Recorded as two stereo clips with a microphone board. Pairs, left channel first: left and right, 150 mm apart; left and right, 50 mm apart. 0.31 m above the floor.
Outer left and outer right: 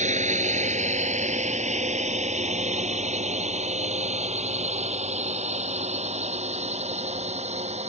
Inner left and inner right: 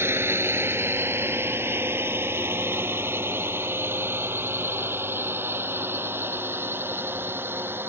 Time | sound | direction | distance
0.0 | a drone | 50° right (ahead or behind) | ?